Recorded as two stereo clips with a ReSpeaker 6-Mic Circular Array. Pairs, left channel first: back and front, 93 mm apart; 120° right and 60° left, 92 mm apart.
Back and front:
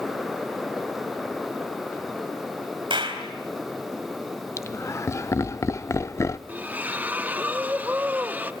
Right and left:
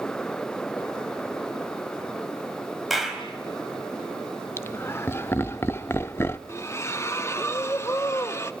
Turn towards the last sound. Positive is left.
turn(degrees=-65)